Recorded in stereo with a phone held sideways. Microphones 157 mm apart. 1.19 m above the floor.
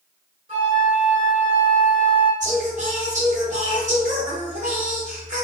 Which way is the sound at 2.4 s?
55° right (ahead or behind).